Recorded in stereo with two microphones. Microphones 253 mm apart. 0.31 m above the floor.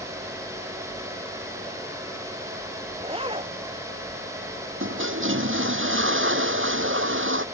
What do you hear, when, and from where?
3.0 s a zipper: 20° right (ahead or behind)
4.8 s a toilet flushing: 55° right (ahead or behind)